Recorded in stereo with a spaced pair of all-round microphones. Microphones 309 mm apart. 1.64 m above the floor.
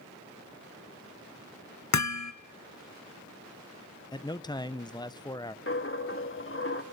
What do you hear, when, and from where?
1.9 s hammering: 60° left (ahead or behind), 0.7 m
4.1 s a man speaking: 15° left (ahead or behind), 0.6 m
5.7 s a dropped coin: 40° left (ahead or behind), 1.2 m